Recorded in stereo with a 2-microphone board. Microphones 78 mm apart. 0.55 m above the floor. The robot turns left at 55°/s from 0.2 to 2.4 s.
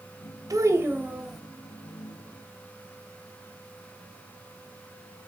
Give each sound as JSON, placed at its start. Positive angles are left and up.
{"t": 0.5, "sound": "a child speaking", "azimuth_deg": -130, "distance_m": 1.6}